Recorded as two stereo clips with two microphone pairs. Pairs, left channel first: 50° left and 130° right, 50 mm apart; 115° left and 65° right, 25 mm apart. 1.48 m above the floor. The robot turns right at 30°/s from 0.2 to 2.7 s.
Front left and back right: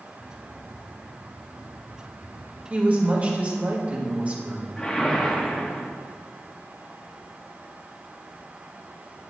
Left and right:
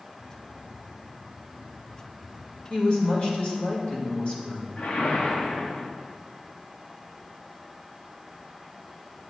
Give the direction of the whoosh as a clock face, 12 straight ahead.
8 o'clock.